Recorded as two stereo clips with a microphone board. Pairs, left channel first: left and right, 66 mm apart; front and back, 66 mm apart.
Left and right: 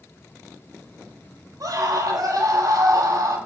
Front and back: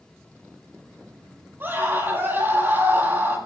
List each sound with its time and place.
1.6 s a scream: 120° right, 10 m